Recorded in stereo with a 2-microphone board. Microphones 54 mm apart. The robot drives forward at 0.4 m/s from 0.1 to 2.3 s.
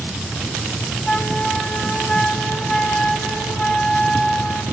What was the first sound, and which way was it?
A flute, 15° left (ahead or behind).